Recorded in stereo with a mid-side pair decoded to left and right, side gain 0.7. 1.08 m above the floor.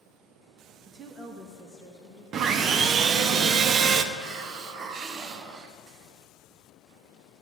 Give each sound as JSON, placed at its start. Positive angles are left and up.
{"t": 0.9, "sound": "a woman speaking", "azimuth_deg": -40, "distance_m": 0.8}
{"t": 2.3, "sound": "sawing", "azimuth_deg": -45, "distance_m": 0.6}
{"t": 4.1, "sound": "a hiss", "azimuth_deg": -45, "distance_m": 0.7}